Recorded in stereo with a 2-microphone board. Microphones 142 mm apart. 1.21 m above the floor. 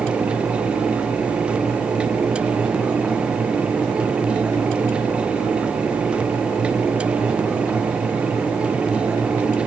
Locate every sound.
Only background noise.